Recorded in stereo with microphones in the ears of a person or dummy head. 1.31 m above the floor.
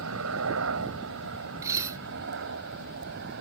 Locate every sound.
0.0 s a helicopter: 70° right (ahead or behind); by 3.4 s 55° right (ahead or behind)
1.6 s dishes clattering: 20° right (ahead or behind)